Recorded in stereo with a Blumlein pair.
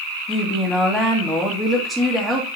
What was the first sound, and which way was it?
A woman speaking, straight ahead.